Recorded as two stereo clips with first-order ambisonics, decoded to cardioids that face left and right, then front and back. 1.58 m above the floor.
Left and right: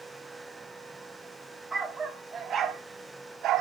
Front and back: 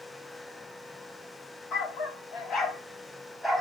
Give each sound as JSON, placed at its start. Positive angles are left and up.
{"t": 1.7, "sound": "a dog barking", "azimuth_deg": -15, "distance_m": 1.4}